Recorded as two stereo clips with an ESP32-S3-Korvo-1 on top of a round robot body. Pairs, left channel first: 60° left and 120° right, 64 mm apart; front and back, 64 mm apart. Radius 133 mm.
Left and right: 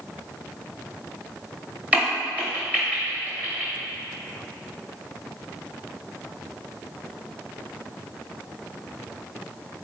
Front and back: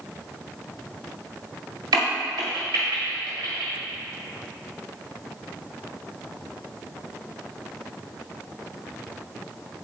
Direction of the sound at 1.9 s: 170° left.